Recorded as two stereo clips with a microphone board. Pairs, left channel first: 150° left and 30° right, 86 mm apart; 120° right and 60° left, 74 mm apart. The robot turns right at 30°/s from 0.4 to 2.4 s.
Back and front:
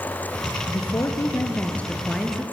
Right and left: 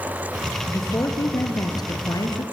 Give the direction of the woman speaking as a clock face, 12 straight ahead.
6 o'clock.